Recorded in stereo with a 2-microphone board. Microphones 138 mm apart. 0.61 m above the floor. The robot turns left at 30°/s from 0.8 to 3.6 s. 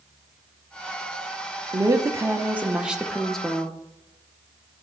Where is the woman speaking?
135° right, 0.7 m; by 3.8 s 170° left, 0.7 m.